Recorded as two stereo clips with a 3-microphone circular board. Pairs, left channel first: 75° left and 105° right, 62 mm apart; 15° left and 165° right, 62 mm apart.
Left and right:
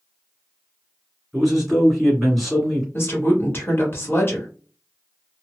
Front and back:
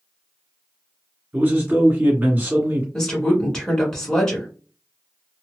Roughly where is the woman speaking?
Left.